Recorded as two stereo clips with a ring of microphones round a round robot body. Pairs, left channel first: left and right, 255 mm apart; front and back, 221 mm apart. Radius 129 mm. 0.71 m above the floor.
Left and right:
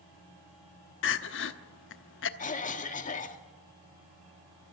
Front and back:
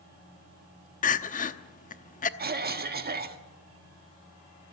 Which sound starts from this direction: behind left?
A cough, at 2.4 s.